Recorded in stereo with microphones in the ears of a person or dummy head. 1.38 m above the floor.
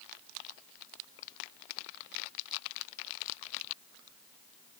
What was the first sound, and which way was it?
Only background noise.